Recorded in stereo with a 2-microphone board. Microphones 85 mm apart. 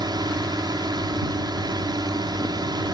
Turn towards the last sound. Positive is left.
turn(degrees=-55)  # may be behind; listen again after turning